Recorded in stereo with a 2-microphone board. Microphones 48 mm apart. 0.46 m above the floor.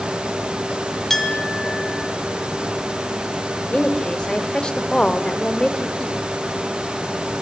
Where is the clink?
5° left (ahead or behind), 2.5 m.